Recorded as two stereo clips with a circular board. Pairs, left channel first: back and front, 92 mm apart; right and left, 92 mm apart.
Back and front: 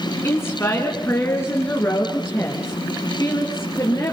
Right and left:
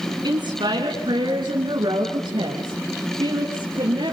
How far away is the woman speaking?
About 3 m.